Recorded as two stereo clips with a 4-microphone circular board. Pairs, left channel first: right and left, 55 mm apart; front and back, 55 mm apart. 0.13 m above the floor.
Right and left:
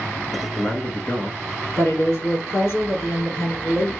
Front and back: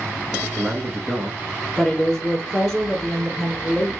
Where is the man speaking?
85° right, 1.3 m.